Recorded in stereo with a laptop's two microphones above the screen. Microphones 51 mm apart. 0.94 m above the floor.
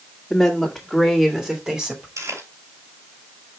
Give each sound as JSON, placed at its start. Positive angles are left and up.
{"t": 0.3, "sound": "a woman speaking", "side_deg": 15, "distance_m": 2.5}
{"t": 2.2, "sound": "chewing", "side_deg": -85, "distance_m": 3.5}